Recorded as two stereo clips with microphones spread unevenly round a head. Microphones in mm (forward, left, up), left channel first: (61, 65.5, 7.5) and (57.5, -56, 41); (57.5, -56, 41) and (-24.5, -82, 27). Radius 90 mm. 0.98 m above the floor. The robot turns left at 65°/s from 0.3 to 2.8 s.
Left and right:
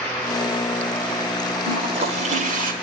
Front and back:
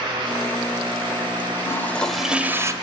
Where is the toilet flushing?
35° right, 1.9 m; by 2.7 s 105° right, 1.9 m.